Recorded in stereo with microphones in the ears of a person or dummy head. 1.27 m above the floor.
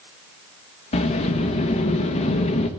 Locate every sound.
0.9 s a sliding door: 35° left (ahead or behind), 1.1 m